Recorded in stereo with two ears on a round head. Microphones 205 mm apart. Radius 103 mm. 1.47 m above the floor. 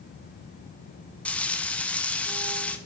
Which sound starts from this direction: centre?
Frying, at 1.2 s.